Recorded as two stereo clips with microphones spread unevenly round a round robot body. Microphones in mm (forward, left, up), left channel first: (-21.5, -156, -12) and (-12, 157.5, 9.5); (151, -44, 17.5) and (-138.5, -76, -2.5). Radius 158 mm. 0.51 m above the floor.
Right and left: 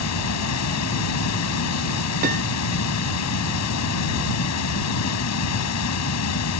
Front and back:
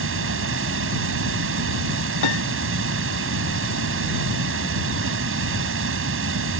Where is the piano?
25° left.